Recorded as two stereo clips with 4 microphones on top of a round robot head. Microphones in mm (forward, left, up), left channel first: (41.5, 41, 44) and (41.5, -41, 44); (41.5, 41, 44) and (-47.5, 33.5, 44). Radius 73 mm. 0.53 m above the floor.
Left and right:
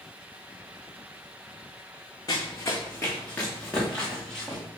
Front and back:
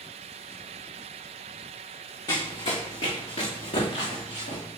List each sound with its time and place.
2.3 s running footsteps: 45° left, 1.7 m; by 4.6 s 5° left, 4.5 m